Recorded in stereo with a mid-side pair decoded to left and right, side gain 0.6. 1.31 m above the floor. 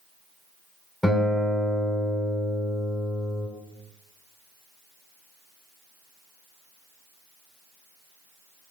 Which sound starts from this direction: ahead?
A guitar, at 1.0 s.